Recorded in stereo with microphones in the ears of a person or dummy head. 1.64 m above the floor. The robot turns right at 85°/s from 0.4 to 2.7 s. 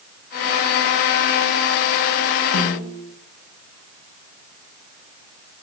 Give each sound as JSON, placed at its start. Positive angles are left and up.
{"t": 2.5, "sound": "a snare drum", "side_deg": 80, "distance_m": 5.5}